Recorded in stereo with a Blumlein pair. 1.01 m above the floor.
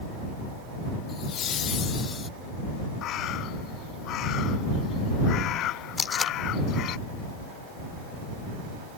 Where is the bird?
35° left.